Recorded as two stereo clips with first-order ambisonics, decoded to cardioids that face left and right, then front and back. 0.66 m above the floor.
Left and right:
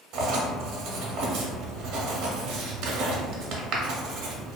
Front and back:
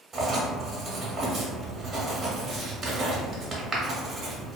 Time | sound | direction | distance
0.1 | writing | 110° right | 0.6 m